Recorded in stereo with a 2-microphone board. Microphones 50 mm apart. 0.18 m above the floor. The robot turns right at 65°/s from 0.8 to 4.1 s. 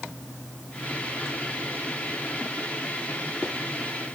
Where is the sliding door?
No sliding door in this recording.